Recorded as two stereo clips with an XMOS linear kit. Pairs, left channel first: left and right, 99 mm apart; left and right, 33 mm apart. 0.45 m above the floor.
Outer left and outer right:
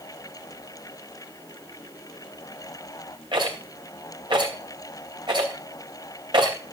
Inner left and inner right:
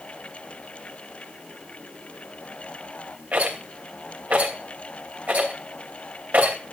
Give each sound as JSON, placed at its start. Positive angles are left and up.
{"t": 3.3, "sound": "a rattle", "side_deg": -55, "distance_m": 2.5}